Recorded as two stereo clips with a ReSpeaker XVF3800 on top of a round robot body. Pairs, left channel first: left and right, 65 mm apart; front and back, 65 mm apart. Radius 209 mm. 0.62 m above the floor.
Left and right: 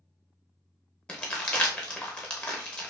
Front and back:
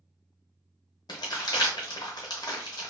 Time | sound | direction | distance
1.1 | crumpling | 15° left | 0.5 m